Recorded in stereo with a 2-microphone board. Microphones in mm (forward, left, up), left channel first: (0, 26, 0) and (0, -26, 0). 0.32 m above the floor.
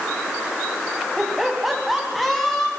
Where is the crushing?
No crushing in this recording.